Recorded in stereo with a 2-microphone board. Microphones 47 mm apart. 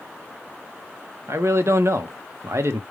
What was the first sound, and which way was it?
A man speaking, 60° right (ahead or behind).